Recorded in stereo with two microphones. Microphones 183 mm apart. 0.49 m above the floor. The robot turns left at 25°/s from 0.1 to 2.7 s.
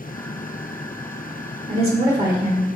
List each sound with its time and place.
1.7 s a woman speaking: 35° right (ahead or behind), 1.6 m; by 2.7 s 15° right (ahead or behind), 1.6 m